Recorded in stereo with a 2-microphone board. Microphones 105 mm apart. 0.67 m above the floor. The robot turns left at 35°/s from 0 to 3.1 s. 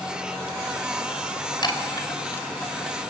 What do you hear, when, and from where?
1.6 s a chime: 50° left (ahead or behind), 3 m; by 3.0 s 5° left (ahead or behind), 3 m